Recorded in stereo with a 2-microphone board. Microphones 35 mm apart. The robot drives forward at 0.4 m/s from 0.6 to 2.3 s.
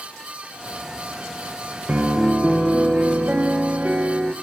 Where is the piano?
50° right (ahead or behind), 0.5 m.